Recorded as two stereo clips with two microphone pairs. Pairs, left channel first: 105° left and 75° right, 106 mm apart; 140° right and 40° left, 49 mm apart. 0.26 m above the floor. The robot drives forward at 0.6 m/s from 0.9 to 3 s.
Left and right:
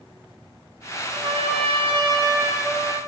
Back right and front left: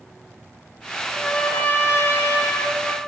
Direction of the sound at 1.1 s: 60° right.